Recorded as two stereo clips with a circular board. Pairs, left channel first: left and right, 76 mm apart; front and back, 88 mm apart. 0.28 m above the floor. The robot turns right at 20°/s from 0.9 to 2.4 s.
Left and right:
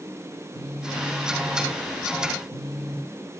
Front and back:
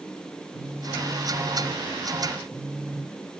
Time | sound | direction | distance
0.5 | a phone buzzing | 110° right | 2 m